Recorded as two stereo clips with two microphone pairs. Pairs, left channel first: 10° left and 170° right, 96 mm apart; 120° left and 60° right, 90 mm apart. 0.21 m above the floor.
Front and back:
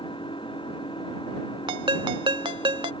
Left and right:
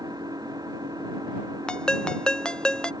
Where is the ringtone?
160° right.